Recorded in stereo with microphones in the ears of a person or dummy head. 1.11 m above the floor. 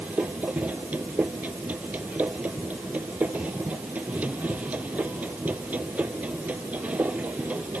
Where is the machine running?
15° right (ahead or behind).